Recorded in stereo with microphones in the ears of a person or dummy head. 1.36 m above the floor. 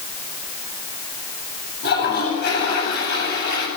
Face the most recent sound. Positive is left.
turn(degrees=60)  # may be behind; listen again after turning